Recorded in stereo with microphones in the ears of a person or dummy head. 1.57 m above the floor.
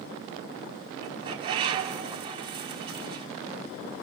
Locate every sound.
1.0 s a bird: 30° right (ahead or behind), 1.2 m